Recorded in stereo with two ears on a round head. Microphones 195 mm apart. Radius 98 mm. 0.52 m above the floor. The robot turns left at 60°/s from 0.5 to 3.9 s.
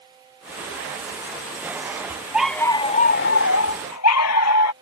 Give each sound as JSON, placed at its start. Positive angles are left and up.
{"t": 2.3, "sound": "a dog barking", "azimuth_deg": -175}